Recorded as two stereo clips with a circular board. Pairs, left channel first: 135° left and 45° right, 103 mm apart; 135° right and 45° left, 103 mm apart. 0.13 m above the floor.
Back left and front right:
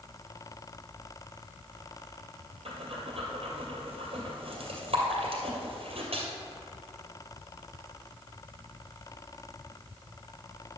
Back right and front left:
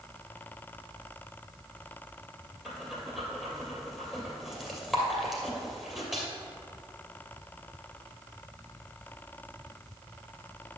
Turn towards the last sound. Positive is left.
turn(degrees=-40)